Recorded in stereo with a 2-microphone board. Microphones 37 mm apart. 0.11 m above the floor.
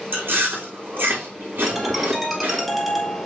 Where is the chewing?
75° right (ahead or behind), 3 m.